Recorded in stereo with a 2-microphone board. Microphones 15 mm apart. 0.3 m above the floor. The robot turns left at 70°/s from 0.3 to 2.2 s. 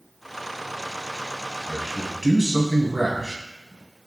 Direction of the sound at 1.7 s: 5° left.